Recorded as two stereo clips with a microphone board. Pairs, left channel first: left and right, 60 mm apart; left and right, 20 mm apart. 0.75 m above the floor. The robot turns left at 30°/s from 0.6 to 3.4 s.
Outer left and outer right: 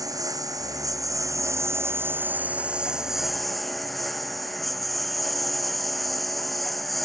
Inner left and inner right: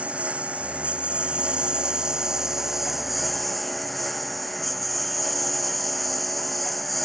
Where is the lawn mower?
95° right; by 7.0 s straight behind.